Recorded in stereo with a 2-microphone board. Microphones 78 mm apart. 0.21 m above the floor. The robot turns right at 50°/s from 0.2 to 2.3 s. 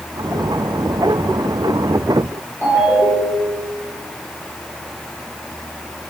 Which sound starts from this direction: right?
A ringtone, at 2.6 s.